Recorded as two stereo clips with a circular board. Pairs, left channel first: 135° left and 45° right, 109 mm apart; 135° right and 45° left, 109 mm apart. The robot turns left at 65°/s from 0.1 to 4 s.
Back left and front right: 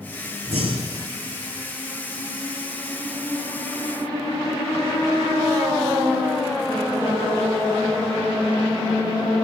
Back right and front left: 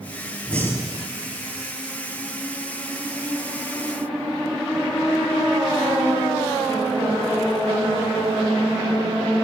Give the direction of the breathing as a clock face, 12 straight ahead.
2 o'clock.